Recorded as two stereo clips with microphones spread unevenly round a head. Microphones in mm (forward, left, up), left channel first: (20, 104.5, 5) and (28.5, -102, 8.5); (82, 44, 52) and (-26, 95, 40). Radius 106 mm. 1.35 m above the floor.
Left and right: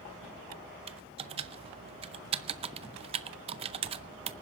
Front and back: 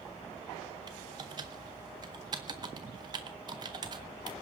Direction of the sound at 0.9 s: 140° right.